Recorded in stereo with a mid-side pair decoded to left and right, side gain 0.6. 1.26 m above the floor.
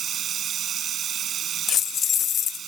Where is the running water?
45° right.